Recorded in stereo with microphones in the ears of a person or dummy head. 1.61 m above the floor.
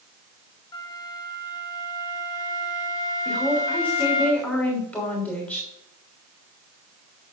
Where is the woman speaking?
15° left (ahead or behind), 3 m.